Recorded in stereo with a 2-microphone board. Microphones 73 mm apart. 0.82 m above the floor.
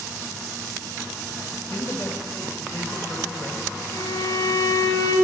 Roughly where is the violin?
Left.